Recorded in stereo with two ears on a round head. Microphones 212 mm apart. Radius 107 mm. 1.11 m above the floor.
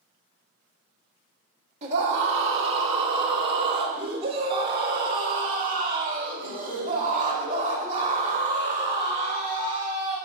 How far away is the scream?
About 2.5 m.